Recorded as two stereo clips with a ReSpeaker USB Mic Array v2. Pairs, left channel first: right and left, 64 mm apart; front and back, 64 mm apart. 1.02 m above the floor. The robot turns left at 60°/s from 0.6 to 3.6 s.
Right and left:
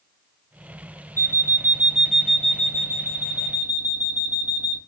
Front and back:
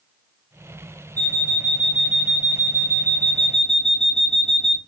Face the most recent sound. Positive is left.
turn(degrees=-90)